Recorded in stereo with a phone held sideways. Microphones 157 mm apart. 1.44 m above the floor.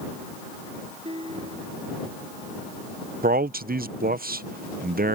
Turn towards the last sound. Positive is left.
turn(degrees=-65)  # may be behind; listen again after turning